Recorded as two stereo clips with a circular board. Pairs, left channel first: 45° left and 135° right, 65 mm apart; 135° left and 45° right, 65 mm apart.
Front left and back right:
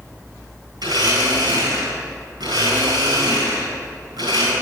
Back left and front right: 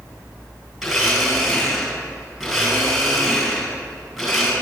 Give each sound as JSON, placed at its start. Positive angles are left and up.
{"t": 0.8, "sound": "a blender", "azimuth_deg": -130, "distance_m": 7.0}